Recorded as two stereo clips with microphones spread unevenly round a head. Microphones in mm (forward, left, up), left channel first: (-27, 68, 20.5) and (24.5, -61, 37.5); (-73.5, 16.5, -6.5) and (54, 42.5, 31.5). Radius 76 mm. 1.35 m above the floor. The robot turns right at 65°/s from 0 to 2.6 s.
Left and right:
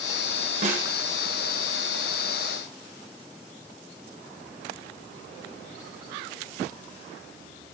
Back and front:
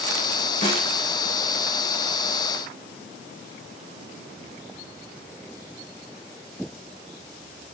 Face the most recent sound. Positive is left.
turn(degrees=20)